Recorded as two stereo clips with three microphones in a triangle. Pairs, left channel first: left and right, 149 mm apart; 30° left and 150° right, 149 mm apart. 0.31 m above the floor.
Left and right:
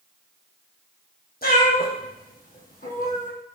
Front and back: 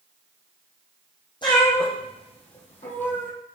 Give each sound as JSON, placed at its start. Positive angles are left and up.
{"t": 1.4, "sound": "a cat meowing", "azimuth_deg": 90, "distance_m": 2.5}